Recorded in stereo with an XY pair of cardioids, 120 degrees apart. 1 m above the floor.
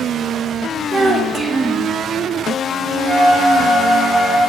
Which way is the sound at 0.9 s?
25° right.